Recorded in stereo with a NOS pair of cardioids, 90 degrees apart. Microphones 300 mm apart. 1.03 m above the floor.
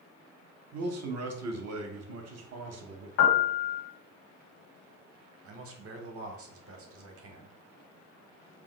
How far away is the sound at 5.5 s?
About 0.8 m.